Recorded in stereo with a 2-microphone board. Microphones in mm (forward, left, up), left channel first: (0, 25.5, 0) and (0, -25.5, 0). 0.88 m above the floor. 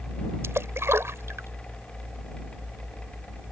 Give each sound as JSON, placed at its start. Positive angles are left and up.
{"t": 0.4, "sound": "a splash", "side_deg": -60}